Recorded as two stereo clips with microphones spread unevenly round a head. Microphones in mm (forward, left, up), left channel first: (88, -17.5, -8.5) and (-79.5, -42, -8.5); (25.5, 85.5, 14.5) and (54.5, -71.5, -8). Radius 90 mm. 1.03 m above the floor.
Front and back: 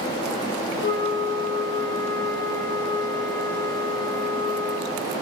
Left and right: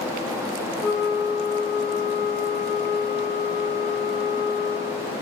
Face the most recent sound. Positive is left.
turn(degrees=15)